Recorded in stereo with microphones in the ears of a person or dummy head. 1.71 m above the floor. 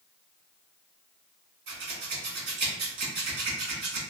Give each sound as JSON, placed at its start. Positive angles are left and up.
{"t": 1.7, "sound": "scissors", "side_deg": -50, "distance_m": 0.9}